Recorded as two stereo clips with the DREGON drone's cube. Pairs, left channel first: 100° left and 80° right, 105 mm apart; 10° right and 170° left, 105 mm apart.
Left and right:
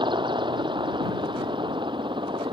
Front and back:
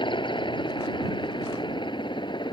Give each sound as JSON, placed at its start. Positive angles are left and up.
{"t": 0.0, "sound": "a helicopter", "azimuth_deg": -45}